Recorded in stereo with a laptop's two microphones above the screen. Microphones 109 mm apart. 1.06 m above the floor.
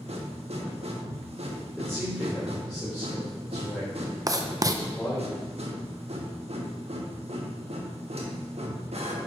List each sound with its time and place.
0.0 s a machine running: 70° right (ahead or behind), 1.3 m
1.8 s a man speaking: 5° left (ahead or behind), 2.5 m
4.3 s writing: 35° right (ahead or behind), 0.7 m